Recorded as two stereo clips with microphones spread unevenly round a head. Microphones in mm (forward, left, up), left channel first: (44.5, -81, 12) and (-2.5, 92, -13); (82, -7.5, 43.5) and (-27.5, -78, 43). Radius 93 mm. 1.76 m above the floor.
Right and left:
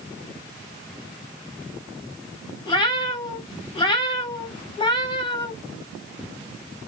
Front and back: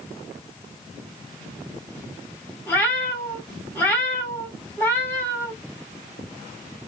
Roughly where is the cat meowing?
Ahead right.